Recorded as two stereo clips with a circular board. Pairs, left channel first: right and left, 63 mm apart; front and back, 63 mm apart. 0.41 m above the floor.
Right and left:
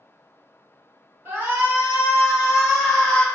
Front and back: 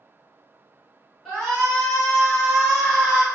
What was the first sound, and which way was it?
A shout, 75° left.